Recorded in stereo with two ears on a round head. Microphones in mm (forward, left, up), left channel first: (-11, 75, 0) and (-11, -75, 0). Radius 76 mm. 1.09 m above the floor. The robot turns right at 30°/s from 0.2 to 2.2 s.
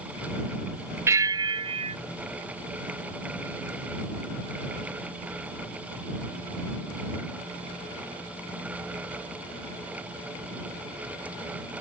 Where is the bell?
15° right (ahead or behind); by 2.0 s 35° right (ahead or behind).